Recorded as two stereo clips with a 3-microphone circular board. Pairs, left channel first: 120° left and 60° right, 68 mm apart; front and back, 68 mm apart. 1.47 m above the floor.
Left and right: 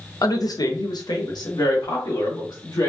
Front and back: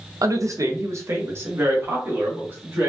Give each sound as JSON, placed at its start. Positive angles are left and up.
{"t": 0.2, "sound": "a woman speaking", "azimuth_deg": 150, "distance_m": 0.6}